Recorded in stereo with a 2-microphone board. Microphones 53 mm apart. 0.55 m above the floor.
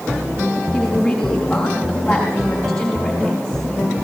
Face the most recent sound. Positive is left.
turn(degrees=10)  # may be behind; listen again after turning